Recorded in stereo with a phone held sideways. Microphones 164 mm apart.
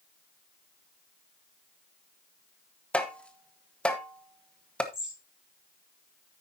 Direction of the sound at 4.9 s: 5° right (ahead or behind).